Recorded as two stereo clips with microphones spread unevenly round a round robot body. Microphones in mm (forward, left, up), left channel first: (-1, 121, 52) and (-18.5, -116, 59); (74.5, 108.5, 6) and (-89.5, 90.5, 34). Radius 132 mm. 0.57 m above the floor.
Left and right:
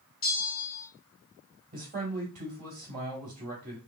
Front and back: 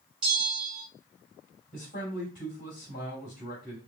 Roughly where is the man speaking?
Ahead right.